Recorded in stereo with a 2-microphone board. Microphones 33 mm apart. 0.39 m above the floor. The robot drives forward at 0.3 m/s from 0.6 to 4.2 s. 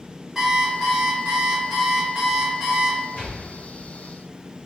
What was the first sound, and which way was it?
An alarm clock, 10° right (ahead or behind).